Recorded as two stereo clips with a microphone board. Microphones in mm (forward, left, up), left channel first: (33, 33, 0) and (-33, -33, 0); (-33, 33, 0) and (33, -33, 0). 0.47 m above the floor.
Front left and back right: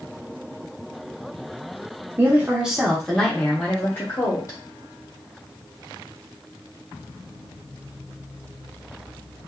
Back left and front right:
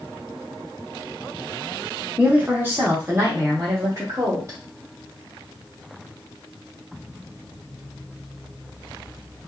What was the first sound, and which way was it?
A woman speaking, 105° right.